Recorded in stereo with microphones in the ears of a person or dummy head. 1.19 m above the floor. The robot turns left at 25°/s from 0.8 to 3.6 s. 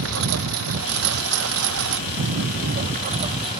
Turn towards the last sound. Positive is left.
turn(degrees=-155)